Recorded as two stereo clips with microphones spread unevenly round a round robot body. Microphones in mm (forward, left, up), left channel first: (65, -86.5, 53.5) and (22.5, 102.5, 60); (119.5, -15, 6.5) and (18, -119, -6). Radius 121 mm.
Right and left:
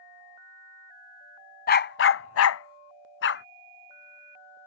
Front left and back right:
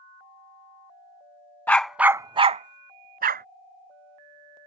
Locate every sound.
1.7 s a dog barking: 35° right; by 3.5 s 120° right